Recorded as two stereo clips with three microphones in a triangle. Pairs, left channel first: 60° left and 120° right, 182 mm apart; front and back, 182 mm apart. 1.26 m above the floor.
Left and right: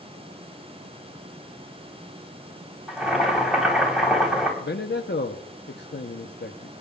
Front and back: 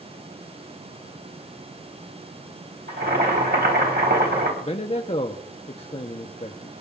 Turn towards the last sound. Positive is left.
turn(degrees=55)